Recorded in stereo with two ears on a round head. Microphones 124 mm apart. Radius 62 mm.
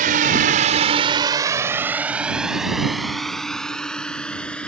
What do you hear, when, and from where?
0.0 s a drone: 65° right (ahead or behind); by 4.7 s 10° left (ahead or behind)